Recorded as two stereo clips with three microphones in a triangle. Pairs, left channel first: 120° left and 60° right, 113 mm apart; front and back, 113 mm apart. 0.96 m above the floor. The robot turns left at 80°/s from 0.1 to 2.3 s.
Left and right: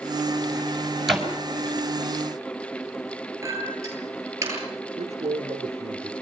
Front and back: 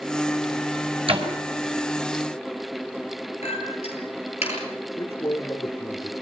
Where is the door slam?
150° right, 5 m; by 1.3 s 165° right, 5 m.